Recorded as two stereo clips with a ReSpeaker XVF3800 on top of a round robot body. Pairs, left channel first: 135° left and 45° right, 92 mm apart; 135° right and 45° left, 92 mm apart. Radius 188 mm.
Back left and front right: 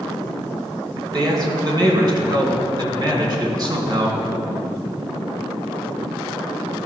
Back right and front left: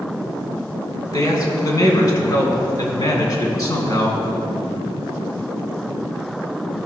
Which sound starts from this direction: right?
A man speaking, at 1.1 s.